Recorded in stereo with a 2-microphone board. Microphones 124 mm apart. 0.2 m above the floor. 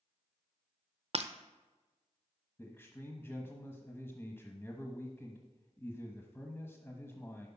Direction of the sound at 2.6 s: 20° left (ahead or behind).